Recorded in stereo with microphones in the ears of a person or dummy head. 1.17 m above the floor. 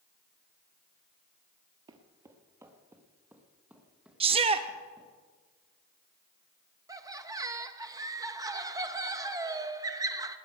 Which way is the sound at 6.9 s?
15° right (ahead or behind).